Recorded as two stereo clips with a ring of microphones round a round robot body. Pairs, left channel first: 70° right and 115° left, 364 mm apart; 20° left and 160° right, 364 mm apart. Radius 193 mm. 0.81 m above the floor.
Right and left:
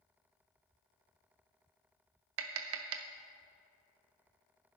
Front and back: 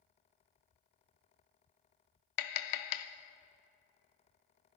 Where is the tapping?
60° left, 0.5 m.